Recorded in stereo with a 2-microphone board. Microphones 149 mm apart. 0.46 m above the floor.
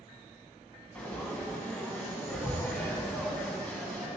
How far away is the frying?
About 0.9 m.